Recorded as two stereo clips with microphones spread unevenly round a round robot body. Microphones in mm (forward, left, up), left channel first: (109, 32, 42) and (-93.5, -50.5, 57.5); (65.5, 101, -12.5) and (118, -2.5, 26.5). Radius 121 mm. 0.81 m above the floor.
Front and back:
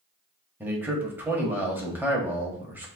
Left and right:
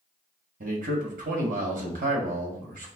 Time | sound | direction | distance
0.6 | a man speaking | 75° right | 1.4 m